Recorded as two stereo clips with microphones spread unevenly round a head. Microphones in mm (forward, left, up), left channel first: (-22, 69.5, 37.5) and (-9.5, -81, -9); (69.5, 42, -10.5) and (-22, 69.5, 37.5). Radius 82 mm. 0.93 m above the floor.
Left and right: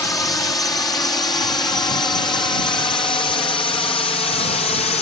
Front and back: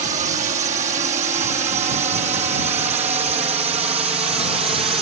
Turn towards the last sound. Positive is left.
turn(degrees=145)